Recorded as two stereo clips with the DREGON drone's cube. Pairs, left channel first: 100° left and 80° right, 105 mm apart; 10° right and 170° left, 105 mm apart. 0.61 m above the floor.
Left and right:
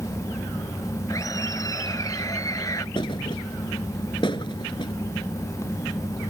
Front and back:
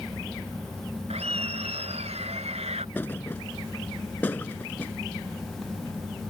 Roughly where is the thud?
Ahead left.